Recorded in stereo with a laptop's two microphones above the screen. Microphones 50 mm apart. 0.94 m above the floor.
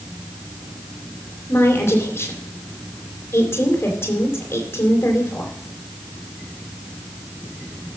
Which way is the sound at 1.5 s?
50° left (ahead or behind).